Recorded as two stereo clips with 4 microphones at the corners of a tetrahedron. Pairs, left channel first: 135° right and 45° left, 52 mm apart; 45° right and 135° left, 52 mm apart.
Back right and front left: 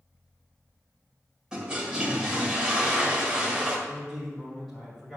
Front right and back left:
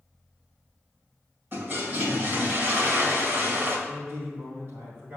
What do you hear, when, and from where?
1.5 s a toilet flushing: 115° left, 1.8 m
3.9 s a man speaking: 140° left, 2 m